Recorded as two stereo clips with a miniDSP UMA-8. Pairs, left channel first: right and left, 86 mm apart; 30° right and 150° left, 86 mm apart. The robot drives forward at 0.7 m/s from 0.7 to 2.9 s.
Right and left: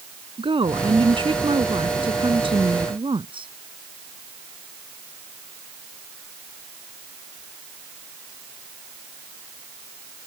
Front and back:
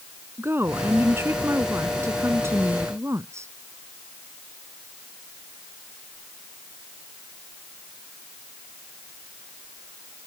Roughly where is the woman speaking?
Left.